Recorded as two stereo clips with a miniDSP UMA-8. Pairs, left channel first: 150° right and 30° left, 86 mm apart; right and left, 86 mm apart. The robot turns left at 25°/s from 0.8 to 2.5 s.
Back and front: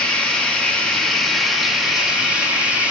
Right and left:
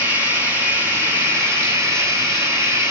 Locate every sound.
0.0 s running water: 135° left, 1.4 m; by 2.9 s 95° left, 1.4 m